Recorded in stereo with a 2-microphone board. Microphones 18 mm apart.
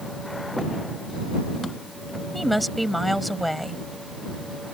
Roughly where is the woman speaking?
Centre.